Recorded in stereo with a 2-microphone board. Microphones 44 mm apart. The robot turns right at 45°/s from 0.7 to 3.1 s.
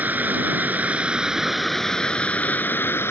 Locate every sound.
0.0 s running water: 45° right; by 3.1 s 65° left